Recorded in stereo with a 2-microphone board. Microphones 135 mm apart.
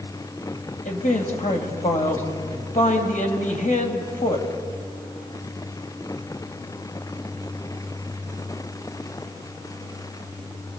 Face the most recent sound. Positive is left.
turn(degrees=70)  # may be behind; listen again after turning